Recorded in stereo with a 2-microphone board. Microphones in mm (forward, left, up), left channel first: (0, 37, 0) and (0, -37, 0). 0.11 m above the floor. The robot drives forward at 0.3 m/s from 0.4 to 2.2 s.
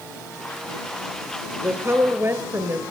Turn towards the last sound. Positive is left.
turn(degrees=-35)  # may be behind; listen again after turning